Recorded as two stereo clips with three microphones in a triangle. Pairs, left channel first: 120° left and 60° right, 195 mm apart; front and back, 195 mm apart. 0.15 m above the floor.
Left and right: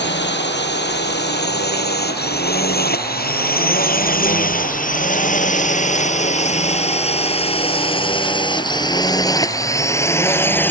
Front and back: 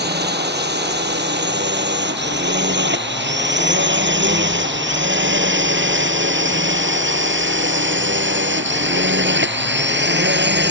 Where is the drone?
145° left; by 10.7 s 160° right.